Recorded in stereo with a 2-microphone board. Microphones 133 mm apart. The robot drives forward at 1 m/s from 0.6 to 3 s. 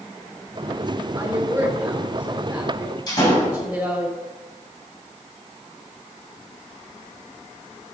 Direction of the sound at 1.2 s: 15° right (ahead or behind).